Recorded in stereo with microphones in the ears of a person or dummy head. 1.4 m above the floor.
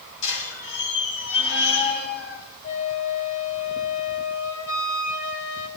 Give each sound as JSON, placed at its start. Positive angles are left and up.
{"t": 0.2, "sound": "a squeak", "side_deg": 80, "distance_m": 3.5}
{"t": 2.6, "sound": "a flute", "side_deg": 80, "distance_m": 4.0}